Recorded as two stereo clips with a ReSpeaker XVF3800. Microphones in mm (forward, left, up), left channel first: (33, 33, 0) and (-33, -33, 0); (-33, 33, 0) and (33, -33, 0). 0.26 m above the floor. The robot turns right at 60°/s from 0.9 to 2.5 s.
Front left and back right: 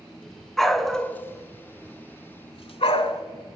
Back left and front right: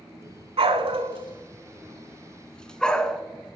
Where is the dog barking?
40° right, 0.6 m; by 3.2 s 55° left, 0.6 m.